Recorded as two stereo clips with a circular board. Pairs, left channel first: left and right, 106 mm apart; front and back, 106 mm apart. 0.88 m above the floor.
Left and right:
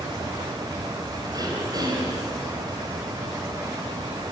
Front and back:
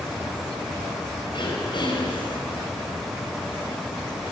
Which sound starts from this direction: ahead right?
Throat clearing, at 1.3 s.